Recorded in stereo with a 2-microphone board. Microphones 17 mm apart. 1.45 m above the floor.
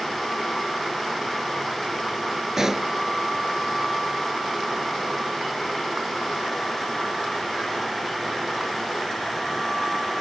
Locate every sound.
2.6 s a pop: 30° right (ahead or behind)